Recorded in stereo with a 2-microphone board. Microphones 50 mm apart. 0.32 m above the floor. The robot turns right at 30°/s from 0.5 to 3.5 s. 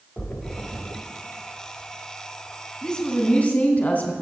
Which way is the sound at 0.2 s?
30° left (ahead or behind).